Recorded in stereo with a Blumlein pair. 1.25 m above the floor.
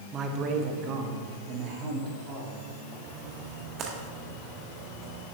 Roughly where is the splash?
Ahead right.